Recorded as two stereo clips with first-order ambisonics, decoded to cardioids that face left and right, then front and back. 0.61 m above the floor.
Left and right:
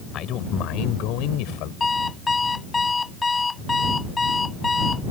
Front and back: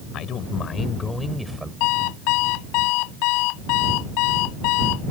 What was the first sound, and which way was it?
A man speaking, 45° left.